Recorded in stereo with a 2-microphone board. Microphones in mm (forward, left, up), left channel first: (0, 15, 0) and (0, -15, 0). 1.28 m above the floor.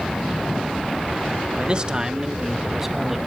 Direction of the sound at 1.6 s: 35° right (ahead or behind).